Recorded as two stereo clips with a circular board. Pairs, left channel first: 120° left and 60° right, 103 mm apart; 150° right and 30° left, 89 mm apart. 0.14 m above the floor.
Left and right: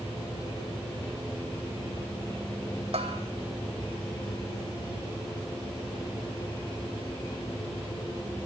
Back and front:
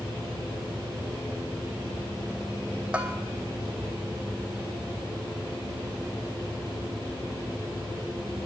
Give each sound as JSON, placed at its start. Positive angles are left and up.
{"t": 2.9, "sound": "a bell", "azimuth_deg": -45, "distance_m": 1.8}